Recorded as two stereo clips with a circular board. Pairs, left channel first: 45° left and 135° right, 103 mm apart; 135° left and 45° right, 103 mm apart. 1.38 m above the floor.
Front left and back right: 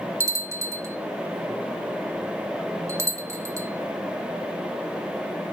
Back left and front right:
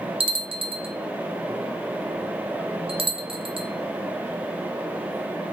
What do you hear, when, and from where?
0.2 s a bell: 75° right, 0.5 m